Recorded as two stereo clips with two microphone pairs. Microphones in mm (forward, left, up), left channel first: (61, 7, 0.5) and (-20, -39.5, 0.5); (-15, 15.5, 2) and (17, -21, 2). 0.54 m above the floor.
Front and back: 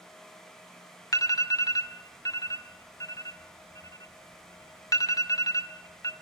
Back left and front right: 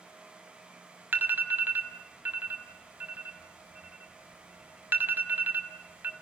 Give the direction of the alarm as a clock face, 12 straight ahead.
12 o'clock.